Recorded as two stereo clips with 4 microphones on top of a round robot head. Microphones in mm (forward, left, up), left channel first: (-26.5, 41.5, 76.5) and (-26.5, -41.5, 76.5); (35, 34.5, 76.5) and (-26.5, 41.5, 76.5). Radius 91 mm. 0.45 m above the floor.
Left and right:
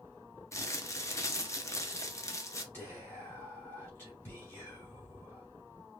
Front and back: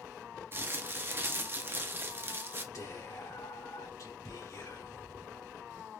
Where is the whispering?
25° left, 3 m.